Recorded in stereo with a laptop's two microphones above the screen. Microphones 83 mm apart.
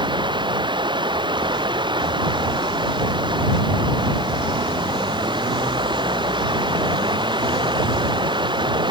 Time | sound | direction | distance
0.0 | running water | 75° right (ahead or behind) | ?